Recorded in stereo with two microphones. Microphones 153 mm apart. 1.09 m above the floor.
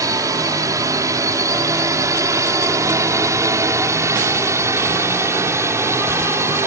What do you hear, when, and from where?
0.0 s a drone: 20° right (ahead or behind); by 6.7 s 15° right (ahead or behind)